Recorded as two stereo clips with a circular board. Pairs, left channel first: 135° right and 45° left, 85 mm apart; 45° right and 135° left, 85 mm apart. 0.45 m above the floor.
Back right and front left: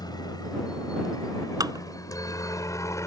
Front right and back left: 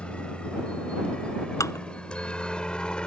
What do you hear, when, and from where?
0.0 s a helicopter: 120° right
1.6 s dishes clattering: 5° left